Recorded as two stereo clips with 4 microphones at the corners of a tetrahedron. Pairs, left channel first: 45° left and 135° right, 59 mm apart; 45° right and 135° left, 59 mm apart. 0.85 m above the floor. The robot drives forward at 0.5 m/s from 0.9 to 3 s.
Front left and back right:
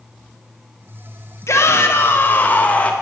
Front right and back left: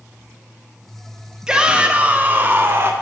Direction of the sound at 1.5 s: 60° left.